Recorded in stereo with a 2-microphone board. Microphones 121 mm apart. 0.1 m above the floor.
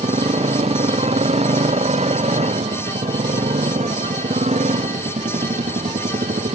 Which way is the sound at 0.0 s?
65° right (ahead or behind).